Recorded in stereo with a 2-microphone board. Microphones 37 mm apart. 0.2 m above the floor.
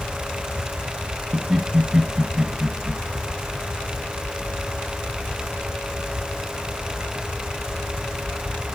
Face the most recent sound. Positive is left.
turn(degrees=-25)  # may be behind; listen again after turning